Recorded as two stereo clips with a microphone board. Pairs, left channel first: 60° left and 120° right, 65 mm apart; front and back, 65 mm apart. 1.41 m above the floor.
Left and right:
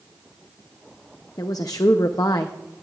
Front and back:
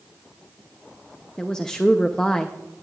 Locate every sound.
1.4 s a woman speaking: 80° left, 0.6 m